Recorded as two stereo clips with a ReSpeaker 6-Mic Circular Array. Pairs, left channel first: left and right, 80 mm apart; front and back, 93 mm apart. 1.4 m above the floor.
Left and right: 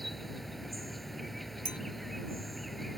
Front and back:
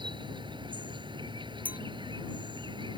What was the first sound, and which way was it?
An insect, 175° left.